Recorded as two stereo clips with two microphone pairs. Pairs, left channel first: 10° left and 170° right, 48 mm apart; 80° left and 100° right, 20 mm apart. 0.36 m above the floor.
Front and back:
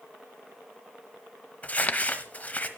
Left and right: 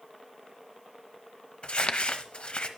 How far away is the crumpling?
About 0.9 m.